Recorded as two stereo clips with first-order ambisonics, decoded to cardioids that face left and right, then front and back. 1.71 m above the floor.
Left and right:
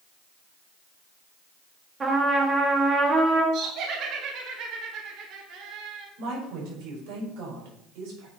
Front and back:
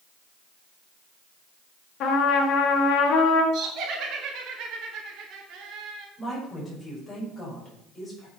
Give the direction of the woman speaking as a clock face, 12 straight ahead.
3 o'clock.